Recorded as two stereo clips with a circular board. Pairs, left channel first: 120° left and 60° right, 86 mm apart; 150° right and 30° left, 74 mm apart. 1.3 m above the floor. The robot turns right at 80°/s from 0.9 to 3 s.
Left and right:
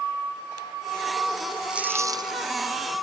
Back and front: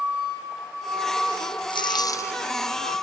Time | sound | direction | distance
1.7 | a dropped coin | 140° right | ?